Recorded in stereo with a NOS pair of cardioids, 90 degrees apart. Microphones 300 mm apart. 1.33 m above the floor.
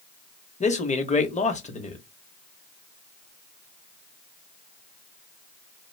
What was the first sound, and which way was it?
A man speaking, 25° left.